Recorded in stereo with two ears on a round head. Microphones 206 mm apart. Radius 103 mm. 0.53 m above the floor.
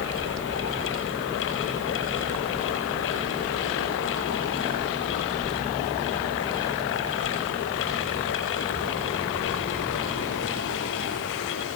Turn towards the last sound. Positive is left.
No sound to turn to.